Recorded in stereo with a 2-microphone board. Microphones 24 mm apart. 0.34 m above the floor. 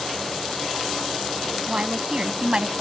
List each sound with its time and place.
1.7 s a woman speaking: 45° right (ahead or behind); by 2.8 s 40° right (ahead or behind)